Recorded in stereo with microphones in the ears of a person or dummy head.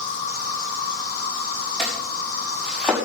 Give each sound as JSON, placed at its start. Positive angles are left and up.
{"t": 0.0, "sound": "an insect", "side_deg": 50, "distance_m": 3.0}
{"t": 1.8, "sound": "chopping", "side_deg": -5, "distance_m": 6.0}